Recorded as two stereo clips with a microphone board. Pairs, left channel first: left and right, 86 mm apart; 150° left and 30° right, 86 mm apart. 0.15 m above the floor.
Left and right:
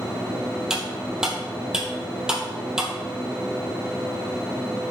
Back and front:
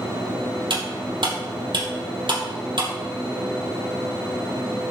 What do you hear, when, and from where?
0.7 s cutlery clinking: 10° right, 2.5 m